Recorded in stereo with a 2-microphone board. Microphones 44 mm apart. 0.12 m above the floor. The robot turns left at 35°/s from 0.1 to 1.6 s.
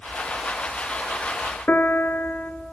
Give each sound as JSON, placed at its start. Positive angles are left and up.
{"t": 1.7, "sound": "a piano", "side_deg": 45, "distance_m": 0.8}